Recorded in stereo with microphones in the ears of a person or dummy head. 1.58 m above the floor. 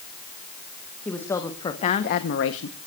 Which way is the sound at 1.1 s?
10° left (ahead or behind).